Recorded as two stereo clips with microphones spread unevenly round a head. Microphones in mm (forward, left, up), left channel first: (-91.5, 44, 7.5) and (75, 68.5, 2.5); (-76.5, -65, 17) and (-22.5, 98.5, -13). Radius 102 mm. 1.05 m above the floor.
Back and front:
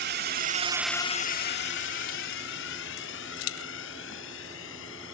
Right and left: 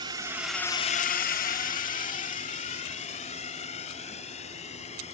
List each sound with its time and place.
0.0 s a drone: 5° left; by 5.1 s 160° right